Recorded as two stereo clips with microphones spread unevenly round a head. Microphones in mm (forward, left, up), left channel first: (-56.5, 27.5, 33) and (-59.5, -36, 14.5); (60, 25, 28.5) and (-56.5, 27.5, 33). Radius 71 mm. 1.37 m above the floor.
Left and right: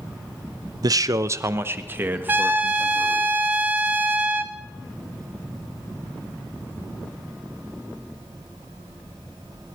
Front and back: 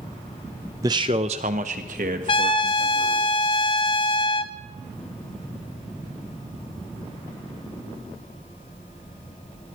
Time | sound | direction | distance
0.8 | a man speaking | 115° right | 0.6 m
2.3 | a trumpet | 40° right | 0.6 m